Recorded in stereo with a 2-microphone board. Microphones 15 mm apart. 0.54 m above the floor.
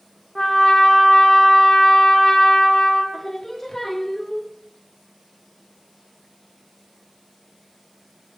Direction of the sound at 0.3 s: 35° left (ahead or behind).